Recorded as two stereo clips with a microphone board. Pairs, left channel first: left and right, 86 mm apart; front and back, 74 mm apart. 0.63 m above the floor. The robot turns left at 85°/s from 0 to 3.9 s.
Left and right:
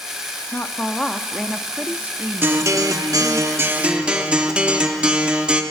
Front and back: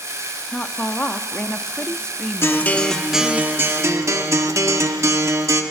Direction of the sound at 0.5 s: 70° left.